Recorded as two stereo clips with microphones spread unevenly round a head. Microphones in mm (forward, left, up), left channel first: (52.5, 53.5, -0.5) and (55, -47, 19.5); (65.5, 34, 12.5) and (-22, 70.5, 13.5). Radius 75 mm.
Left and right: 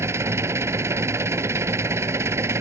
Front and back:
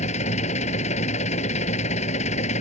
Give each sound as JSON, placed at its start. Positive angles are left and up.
{"t": 0.0, "sound": "an engine running", "azimuth_deg": -25}